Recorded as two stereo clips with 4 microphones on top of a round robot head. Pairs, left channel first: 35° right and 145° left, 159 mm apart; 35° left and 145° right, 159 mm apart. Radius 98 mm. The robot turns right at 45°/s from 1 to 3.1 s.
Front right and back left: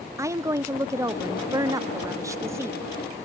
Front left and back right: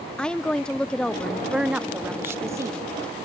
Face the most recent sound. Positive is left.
turn(degrees=-155)